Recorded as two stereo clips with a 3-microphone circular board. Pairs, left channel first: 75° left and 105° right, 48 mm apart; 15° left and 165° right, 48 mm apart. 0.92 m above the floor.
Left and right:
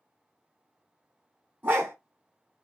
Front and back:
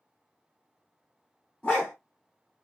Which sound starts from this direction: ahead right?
A dog barking, at 1.6 s.